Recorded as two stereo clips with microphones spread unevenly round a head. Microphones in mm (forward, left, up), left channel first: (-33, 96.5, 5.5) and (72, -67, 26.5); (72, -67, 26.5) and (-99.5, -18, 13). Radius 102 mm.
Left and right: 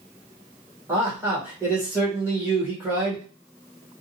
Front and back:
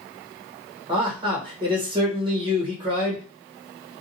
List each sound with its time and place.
0.9 s a man speaking: 140° right, 1.5 m